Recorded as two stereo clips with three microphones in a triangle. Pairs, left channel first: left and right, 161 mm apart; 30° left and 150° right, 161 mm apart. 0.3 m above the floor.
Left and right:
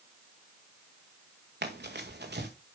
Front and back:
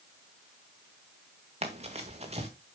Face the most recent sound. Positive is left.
turn(degrees=-100)